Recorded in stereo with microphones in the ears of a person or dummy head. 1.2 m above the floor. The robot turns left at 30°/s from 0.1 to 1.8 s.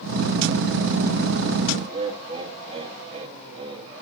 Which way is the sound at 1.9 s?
35° right (ahead or behind).